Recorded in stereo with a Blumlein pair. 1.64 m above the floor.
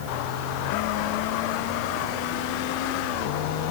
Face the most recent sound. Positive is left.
No sound to turn to.